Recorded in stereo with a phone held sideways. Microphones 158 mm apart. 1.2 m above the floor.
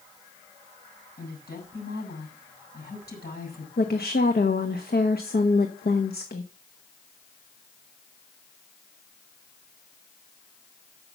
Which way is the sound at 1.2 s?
85° left.